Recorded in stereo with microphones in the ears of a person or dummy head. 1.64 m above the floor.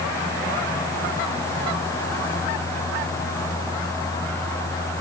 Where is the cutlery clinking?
No cutlery clinking in this recording.